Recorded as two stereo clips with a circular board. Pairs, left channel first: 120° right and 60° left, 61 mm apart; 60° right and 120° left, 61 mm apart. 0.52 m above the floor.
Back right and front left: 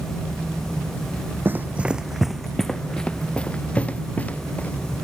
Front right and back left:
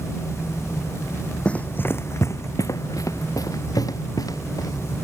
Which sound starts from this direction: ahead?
Running footsteps, at 1.4 s.